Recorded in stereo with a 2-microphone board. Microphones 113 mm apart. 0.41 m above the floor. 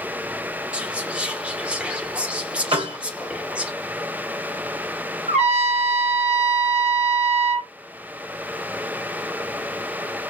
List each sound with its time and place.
0.7 s whispering: 10° right (ahead or behind), 0.7 m
2.7 s a piano: 55° right (ahead or behind), 1.8 m
5.3 s a trumpet: 75° right (ahead or behind), 2 m